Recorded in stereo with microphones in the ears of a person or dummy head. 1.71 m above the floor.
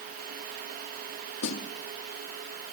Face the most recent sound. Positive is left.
turn(degrees=65)  # may be behind; listen again after turning